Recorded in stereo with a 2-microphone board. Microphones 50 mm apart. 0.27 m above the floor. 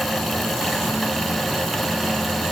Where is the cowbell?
No cowbell in this recording.